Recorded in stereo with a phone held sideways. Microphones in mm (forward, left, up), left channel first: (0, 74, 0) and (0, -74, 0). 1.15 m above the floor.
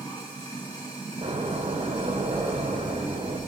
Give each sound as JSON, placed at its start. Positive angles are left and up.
{"t": 0.0, "sound": "running water", "side_deg": 25, "distance_m": 2.5}
{"t": 1.2, "sound": "a door slam", "side_deg": -50, "distance_m": 2.0}